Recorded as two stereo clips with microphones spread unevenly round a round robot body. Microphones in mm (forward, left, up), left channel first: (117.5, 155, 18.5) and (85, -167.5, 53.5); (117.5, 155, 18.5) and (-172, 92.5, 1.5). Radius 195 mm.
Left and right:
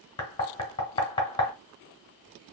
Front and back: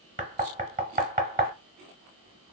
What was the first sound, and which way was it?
Knocking, 150° left.